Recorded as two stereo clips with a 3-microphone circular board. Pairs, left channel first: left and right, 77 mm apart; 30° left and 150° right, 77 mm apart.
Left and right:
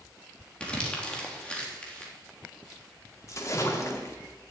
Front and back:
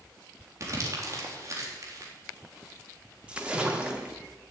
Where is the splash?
135° left, 2 m.